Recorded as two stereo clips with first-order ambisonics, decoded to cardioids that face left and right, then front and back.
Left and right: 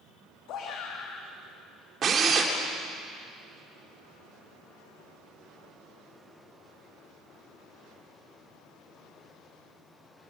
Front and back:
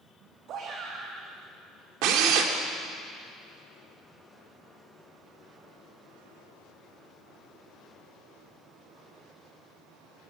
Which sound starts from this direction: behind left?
A shout, at 0.5 s.